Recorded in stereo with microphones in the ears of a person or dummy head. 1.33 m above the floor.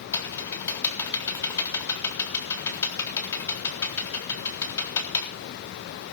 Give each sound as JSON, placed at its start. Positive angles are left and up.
{"t": 0.1, "sound": "typing on a keyboard", "side_deg": 15, "distance_m": 3.5}